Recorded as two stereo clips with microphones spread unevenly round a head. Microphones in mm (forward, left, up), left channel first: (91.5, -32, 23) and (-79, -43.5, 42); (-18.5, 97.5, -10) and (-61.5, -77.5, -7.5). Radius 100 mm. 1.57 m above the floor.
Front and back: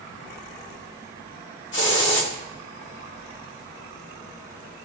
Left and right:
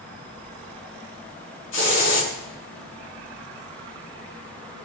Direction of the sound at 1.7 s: 40° left.